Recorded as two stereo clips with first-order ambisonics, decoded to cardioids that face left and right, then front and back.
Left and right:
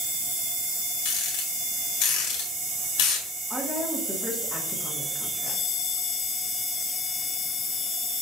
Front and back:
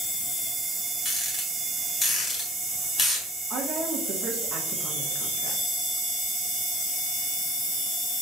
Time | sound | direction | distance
1.1 | a rattle | 70° left | 1.5 m
3.5 | a woman speaking | straight behind | 0.8 m